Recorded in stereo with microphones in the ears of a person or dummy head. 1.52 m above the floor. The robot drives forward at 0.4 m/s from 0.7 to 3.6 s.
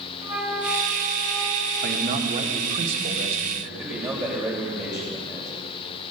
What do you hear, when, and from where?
0.2 s a flute: 20° right (ahead or behind), 2 m; by 2.1 s 15° right (ahead or behind), 3 m
1.8 s a man speaking: 45° right (ahead or behind), 1.4 m; by 3.5 s 35° right (ahead or behind), 1.9 m
3.6 s a man speaking: 5° right (ahead or behind), 6.5 m